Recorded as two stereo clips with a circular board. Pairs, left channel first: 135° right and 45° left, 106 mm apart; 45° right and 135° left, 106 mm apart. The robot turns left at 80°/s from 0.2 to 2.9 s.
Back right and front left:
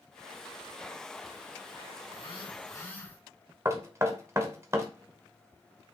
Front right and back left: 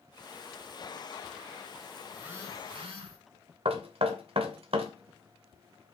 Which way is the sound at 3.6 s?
110° left.